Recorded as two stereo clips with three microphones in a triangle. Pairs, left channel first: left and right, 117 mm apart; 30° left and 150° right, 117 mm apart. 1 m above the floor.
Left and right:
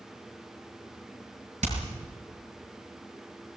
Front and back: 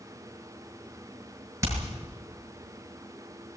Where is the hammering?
85° right, 6.5 m.